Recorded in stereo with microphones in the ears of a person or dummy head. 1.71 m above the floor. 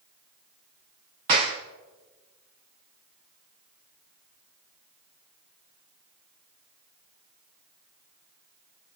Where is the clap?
20° right (ahead or behind), 0.6 m.